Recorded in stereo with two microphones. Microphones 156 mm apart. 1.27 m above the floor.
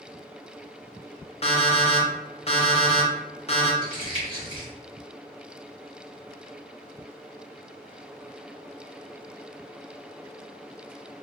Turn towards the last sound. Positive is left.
turn(degrees=35)  # may be behind; listen again after turning